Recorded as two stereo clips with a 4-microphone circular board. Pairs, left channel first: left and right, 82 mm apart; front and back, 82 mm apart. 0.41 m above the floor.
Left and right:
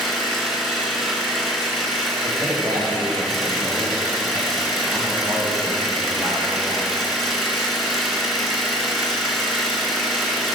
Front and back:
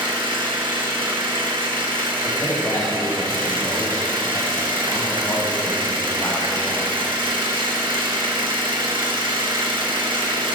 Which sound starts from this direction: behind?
An engine running, at 0.0 s.